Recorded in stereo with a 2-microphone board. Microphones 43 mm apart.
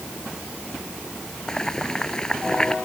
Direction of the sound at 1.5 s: 15° left (ahead or behind).